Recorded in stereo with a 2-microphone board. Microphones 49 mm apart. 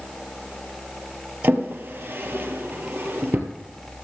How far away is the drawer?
About 1.9 m.